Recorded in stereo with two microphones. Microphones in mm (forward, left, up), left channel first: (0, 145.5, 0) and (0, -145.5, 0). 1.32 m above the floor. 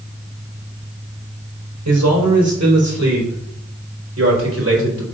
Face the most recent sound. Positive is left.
turn(degrees=-50)  # may be behind; listen again after turning